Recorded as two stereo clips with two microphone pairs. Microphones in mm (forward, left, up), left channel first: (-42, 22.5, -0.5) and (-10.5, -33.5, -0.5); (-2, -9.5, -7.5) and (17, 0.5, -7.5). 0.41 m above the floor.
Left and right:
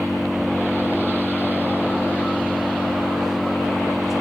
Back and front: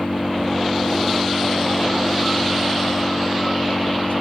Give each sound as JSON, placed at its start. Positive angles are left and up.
{"t": 0.0, "sound": "an engine running", "azimuth_deg": -145}